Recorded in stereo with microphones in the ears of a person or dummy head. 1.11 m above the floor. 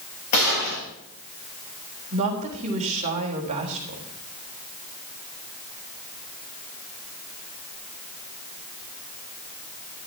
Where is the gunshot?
50° left (ahead or behind), 9.5 m.